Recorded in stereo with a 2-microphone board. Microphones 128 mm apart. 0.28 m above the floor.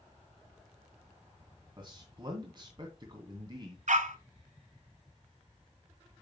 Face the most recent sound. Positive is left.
turn(degrees=-70)  # may be behind; listen again after turning